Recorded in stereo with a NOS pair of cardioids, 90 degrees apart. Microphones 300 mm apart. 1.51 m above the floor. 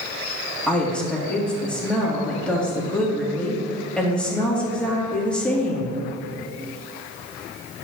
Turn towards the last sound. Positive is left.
turn(degrees=5)